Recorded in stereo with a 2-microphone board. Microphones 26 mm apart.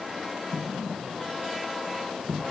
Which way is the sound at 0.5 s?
10° right (ahead or behind).